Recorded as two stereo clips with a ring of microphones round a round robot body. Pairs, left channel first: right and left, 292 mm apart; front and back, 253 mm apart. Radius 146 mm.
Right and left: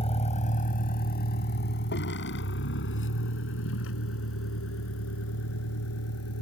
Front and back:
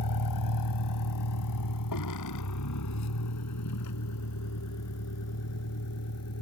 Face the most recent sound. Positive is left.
turn(degrees=-45)